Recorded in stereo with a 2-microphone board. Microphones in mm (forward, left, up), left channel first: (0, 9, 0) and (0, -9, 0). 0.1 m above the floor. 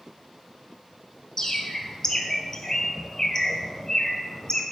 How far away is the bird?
About 1.0 m.